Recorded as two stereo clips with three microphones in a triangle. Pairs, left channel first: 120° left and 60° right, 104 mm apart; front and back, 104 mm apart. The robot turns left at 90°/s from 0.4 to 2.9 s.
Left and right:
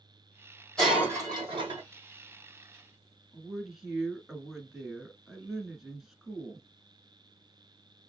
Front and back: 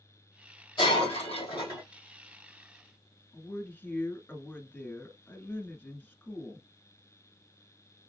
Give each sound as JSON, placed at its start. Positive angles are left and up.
{"t": 0.8, "sound": "breaking glass", "azimuth_deg": 35, "distance_m": 2.5}
{"t": 3.3, "sound": "a woman speaking", "azimuth_deg": 15, "distance_m": 1.2}